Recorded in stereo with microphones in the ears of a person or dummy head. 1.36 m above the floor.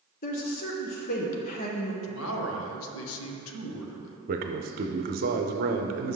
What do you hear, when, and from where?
0.2 s a woman speaking: 40° left (ahead or behind), 0.7 m
2.0 s a man speaking: 75° left (ahead or behind), 0.7 m
4.3 s a man speaking: 45° right (ahead or behind), 0.6 m